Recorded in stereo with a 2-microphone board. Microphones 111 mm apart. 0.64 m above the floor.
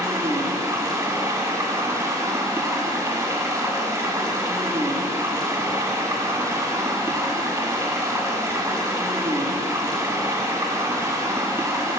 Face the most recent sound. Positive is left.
turn(degrees=-30)  # may be behind; listen again after turning